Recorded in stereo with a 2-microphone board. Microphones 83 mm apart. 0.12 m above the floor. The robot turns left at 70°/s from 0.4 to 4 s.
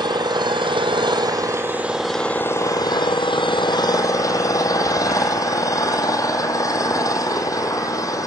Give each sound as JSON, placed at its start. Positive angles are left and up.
{"t": 0.0, "sound": "an engine running", "azimuth_deg": -60, "distance_m": 1.4}